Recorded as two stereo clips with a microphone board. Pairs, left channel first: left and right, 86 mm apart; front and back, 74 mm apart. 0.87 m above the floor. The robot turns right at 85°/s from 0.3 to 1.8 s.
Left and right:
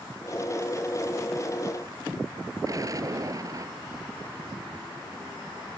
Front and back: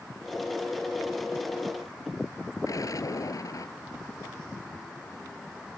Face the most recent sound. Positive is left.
turn(degrees=-40)